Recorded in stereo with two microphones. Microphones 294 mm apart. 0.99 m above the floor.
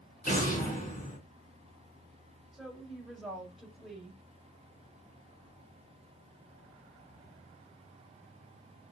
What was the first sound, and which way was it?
An explosion, 25° left (ahead or behind).